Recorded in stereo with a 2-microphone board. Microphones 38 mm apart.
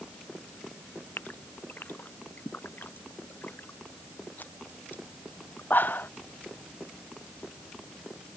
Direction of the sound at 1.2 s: 55° left (ahead or behind).